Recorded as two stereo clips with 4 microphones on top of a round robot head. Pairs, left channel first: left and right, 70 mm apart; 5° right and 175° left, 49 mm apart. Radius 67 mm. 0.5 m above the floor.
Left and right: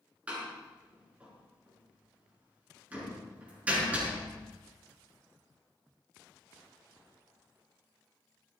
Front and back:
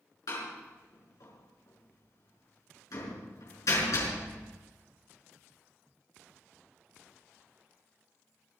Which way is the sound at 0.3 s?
15° right.